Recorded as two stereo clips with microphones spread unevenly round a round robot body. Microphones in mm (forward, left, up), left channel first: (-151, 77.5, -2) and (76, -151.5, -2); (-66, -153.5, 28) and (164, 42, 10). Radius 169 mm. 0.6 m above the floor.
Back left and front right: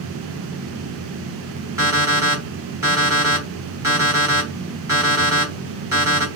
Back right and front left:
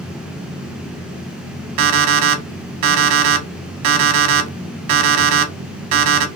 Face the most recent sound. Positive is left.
turn(degrees=35)